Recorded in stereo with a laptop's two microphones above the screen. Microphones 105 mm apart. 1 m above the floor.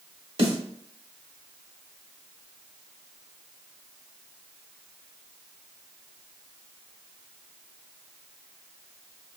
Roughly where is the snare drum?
Right.